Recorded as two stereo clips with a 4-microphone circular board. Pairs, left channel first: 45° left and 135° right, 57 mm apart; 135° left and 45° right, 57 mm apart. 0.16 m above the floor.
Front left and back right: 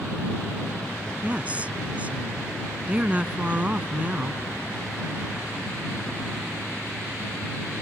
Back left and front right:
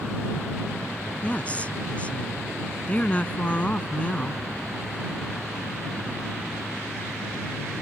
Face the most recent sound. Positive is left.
turn(degrees=180)